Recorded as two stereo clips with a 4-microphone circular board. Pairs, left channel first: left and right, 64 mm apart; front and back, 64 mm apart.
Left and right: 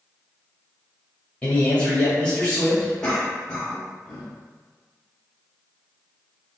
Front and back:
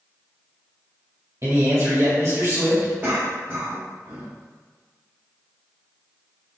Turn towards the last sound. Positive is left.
turn(degrees=155)